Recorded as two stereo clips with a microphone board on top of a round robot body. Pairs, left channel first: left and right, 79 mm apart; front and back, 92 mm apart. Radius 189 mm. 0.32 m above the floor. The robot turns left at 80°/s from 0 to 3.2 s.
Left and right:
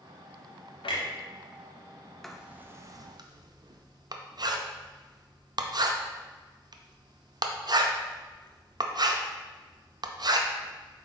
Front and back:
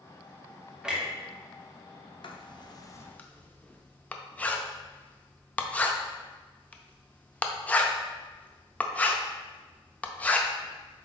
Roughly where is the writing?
Ahead.